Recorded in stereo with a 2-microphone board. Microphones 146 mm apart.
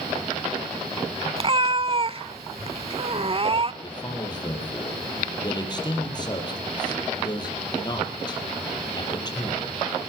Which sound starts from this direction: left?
A man speaking, at 3.8 s.